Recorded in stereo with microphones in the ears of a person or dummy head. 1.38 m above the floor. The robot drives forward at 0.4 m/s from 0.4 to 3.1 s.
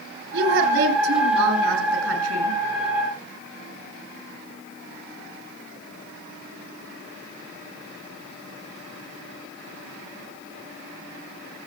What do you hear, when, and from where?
0.3 s a woman speaking: 65° right (ahead or behind), 7.5 m; by 2.6 s 70° right (ahead or behind), 7.5 m